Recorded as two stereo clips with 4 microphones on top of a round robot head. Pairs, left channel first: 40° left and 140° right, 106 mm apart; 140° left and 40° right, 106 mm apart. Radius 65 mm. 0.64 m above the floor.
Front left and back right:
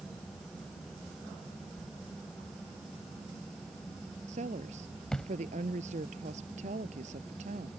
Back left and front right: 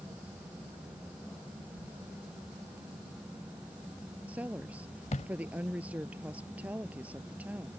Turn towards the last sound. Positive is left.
turn(degrees=-120)